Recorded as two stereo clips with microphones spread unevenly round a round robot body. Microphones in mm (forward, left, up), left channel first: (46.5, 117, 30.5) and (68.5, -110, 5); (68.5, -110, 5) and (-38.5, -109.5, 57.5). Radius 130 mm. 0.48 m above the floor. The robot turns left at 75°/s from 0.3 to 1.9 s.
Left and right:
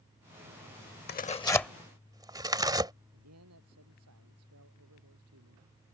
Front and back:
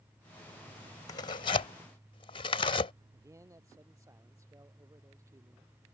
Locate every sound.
1.1 s tearing paper: 50° left; by 2.9 s 10° right
3.1 s a man speaking: 120° right